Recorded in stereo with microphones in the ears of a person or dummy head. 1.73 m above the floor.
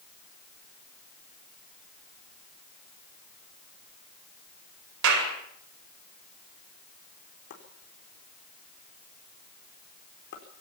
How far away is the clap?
About 8 m.